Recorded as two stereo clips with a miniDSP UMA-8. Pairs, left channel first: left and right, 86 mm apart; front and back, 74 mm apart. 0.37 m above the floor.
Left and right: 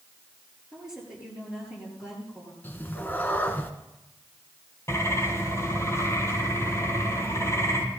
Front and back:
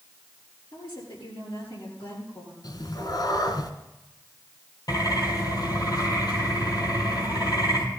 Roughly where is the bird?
Ahead left.